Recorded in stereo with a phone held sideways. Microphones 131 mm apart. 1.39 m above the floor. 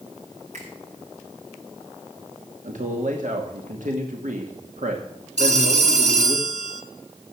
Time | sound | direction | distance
0.5 | a finger snap | 60° right (ahead or behind) | 7 m
2.6 | a man speaking | 75° right (ahead or behind) | 2.5 m
5.4 | a phone ringing | 60° right (ahead or behind) | 1.8 m